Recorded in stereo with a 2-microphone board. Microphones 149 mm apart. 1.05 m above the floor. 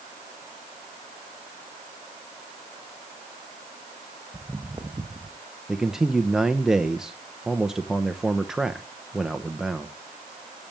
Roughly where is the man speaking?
Centre.